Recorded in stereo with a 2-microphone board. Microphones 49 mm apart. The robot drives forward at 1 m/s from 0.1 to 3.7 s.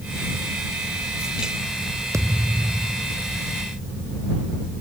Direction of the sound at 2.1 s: 85° right.